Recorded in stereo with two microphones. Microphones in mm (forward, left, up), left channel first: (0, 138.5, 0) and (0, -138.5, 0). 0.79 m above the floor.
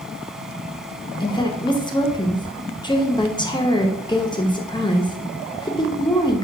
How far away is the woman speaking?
About 0.6 m.